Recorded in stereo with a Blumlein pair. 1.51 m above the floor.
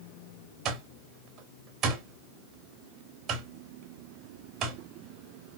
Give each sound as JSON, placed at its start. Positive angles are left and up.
{"t": 0.7, "sound": "an alarm clock", "azimuth_deg": -30, "distance_m": 2.5}